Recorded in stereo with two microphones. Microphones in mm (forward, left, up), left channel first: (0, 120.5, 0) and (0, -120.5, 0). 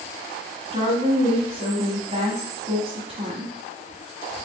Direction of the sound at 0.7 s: 20° right (ahead or behind).